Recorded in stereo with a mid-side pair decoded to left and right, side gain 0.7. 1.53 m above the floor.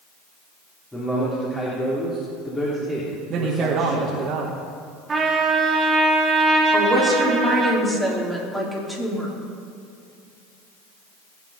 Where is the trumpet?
25° right, 3 m.